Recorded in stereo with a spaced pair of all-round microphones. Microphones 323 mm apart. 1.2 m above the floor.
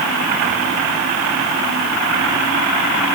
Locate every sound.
Only background noise.